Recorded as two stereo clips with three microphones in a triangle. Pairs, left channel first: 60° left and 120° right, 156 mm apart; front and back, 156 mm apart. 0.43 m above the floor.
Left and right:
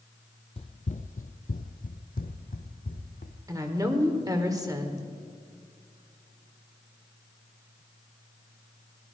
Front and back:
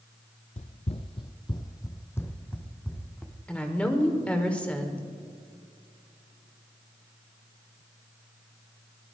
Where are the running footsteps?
20° left, 0.6 m; by 3.4 s 85° left, 1.6 m.